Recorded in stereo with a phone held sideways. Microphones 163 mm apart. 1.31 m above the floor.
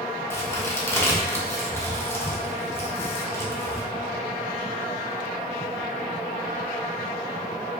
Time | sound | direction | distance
0.3 | a crack | 15° left (ahead or behind) | 0.9 m